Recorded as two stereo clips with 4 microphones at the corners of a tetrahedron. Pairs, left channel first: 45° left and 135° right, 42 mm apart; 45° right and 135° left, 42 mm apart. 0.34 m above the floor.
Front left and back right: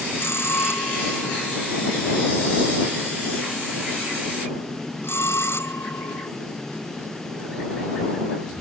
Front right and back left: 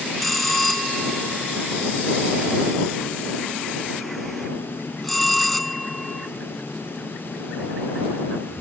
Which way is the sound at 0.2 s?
40° left.